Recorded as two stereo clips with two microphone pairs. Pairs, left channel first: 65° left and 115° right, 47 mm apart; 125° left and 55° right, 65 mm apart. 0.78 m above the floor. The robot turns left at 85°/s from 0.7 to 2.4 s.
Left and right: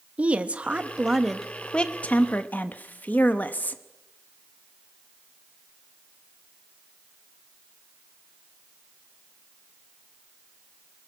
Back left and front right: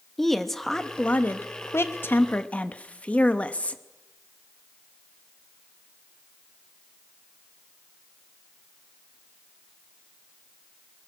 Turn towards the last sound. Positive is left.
turn(degrees=65)